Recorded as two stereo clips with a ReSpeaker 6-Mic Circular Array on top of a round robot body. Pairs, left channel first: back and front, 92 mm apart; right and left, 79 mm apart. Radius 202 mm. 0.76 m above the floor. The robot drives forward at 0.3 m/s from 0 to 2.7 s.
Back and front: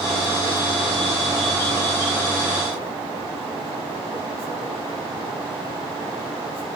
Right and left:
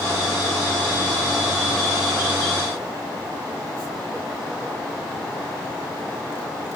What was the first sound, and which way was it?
Only background noise.